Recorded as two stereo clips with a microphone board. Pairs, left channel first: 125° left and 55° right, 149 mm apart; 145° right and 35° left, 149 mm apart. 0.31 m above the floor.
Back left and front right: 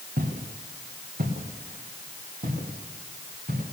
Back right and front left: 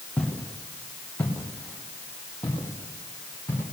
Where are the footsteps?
65° right, 2.5 m.